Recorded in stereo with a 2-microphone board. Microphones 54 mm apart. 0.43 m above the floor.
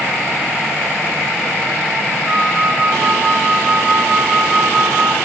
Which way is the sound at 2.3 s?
5° right (ahead or behind).